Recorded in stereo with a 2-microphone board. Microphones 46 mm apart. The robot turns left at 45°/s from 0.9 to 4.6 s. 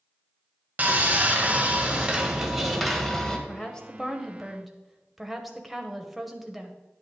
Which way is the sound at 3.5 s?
20° left (ahead or behind).